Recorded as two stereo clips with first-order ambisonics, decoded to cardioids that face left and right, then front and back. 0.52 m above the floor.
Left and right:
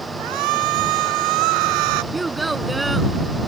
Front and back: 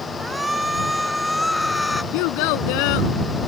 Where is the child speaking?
10° right.